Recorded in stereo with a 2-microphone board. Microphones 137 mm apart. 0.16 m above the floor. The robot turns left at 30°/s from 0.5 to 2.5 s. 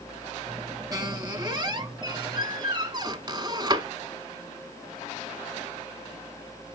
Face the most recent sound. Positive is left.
turn(degrees=-105)